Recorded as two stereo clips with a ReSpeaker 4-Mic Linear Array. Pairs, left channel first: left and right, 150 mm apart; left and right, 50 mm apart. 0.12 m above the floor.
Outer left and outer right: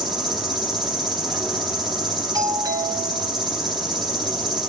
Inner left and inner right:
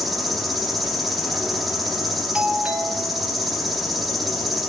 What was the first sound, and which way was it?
An insect, centre (ahead or behind).